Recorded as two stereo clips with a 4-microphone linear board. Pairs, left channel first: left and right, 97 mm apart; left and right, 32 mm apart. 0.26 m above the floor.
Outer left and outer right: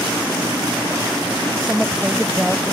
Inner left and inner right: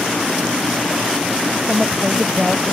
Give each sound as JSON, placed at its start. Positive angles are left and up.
{"t": 1.7, "sound": "a woman speaking", "side_deg": -10}